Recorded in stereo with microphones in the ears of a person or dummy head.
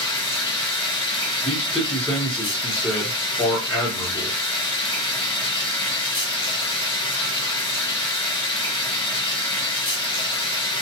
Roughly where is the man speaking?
Centre.